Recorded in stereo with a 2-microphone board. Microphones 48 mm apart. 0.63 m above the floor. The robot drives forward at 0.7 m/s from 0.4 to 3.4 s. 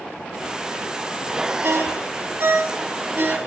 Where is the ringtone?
55° right (ahead or behind), 3.5 m; by 3.4 s 45° right (ahead or behind), 4 m.